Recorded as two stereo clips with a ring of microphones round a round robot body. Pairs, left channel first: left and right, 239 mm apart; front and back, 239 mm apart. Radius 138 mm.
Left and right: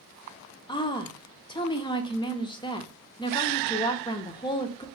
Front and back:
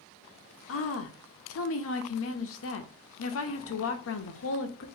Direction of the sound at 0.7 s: 20° left.